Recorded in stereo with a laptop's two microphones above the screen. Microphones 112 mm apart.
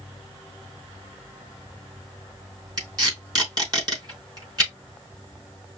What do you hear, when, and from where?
2.8 s tape being pulled: 35° right (ahead or behind), 4 m